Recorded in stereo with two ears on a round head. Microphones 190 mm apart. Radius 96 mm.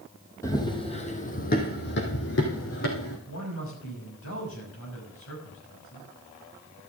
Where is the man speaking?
70° left (ahead or behind), 5.5 m.